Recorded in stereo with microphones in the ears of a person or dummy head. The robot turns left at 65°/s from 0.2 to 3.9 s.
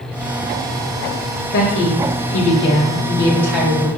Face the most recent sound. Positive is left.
turn(degrees=-25)